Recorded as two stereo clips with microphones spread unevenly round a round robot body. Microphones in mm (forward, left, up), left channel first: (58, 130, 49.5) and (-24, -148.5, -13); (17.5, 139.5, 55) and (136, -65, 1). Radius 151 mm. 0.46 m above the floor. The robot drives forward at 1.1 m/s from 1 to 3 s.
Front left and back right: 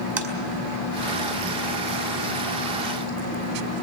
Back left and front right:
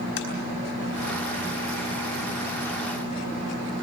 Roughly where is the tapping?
Behind.